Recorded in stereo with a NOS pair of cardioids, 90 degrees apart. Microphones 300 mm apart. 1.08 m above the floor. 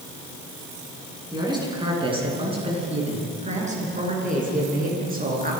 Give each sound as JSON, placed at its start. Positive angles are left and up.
{"t": 1.3, "sound": "a man speaking", "azimuth_deg": -15, "distance_m": 10.0}